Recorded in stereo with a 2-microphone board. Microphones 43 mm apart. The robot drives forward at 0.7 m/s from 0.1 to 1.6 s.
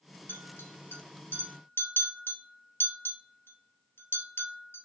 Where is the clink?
60° left (ahead or behind), 1.9 m.